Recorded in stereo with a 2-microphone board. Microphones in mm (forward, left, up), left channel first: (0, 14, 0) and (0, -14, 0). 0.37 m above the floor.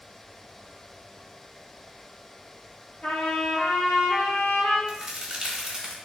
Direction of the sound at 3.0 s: 55° left (ahead or behind).